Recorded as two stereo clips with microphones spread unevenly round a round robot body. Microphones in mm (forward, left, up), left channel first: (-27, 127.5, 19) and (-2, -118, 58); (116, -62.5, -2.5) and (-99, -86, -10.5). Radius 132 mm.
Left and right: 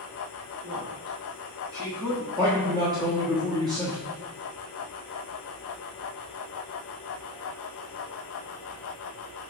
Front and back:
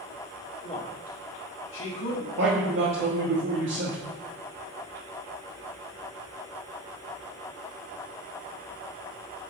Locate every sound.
0.6 s a man speaking: 55° right, 1.9 m; by 2.3 s 20° left, 1.7 m
2.4 s a man speaking: 160° right, 1.5 m